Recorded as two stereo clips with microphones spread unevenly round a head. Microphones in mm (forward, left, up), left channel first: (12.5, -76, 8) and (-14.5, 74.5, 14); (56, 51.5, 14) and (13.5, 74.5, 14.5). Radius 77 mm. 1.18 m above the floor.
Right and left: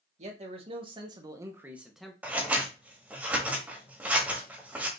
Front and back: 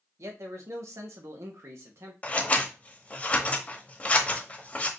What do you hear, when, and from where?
0.2 s a man speaking: 150° left, 1.5 m; by 2.1 s 165° right, 0.9 m
2.2 s scissors: 25° left, 1.3 m